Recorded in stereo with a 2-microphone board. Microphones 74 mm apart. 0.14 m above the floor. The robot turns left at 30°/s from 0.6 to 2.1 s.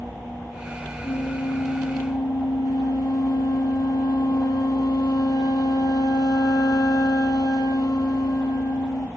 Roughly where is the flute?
Left.